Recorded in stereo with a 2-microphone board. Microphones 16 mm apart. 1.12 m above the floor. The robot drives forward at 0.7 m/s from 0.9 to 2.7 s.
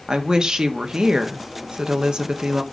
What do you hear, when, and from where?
0.1 s a woman speaking: 55° right (ahead or behind), 1.4 m